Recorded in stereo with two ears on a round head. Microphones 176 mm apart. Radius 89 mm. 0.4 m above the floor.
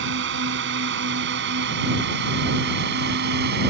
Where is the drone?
65° right (ahead or behind); by 3.7 s 60° right (ahead or behind).